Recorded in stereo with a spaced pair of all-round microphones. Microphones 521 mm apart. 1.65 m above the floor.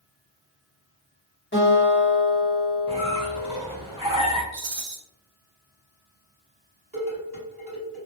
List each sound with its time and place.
1.5 s a guitar: 20° left (ahead or behind), 1.1 m
2.9 s a squeak: 10° right (ahead or behind), 0.8 m
4.5 s a rattle: 60° right (ahead or behind), 0.5 m
6.9 s dishes clattering: 40° right (ahead or behind), 1.5 m